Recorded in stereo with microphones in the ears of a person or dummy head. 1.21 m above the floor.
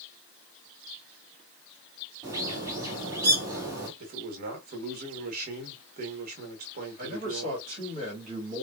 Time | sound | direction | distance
2.2 | a bird | 20° right (ahead or behind) | 1.9 m
4.0 | a man speaking | 45° right (ahead or behind) | 1.4 m
7.0 | a man speaking | 40° right (ahead or behind) | 2 m